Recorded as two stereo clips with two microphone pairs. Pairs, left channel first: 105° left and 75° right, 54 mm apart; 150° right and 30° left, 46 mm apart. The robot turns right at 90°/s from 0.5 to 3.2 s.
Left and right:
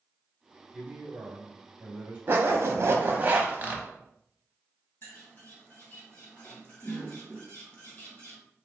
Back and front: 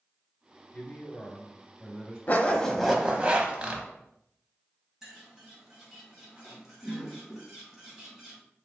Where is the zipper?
115° right, 0.7 m; by 3.8 s 30° right, 0.7 m.